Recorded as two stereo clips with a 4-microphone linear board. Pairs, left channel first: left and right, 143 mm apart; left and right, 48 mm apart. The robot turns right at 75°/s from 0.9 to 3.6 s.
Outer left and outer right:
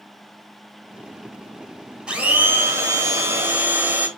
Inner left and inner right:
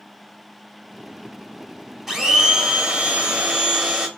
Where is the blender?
5° right (ahead or behind), 1.6 m; by 4.1 s 15° right (ahead or behind), 1.6 m.